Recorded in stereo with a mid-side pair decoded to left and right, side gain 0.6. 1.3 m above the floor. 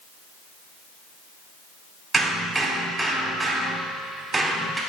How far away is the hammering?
About 2.5 m.